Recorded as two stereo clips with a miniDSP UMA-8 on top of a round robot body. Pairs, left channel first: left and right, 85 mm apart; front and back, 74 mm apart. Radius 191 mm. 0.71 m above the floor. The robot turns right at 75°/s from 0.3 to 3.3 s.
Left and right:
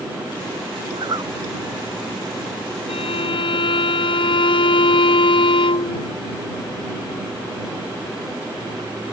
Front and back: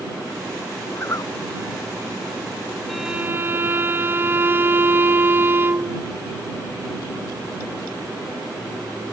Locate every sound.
0.9 s a zipper: 65° right; by 1.3 s 35° right
2.9 s a violin: 85° left; by 6.1 s 115° left